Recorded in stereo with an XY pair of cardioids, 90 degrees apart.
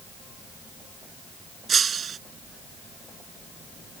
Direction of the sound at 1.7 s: 50° right.